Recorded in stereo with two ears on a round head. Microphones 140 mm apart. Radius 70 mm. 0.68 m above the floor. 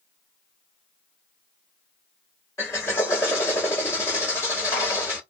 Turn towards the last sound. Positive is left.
turn(degrees=20)  # may be behind; listen again after turning